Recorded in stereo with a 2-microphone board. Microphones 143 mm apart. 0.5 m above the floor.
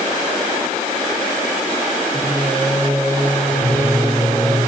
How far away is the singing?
About 5 m.